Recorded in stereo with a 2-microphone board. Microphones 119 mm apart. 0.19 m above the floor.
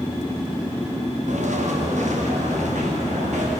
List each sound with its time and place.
1.3 s footsteps: 85° right, 2.5 m